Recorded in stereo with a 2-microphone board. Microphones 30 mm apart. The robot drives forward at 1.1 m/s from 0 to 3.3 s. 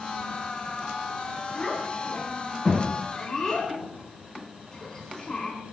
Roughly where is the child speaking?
Centre.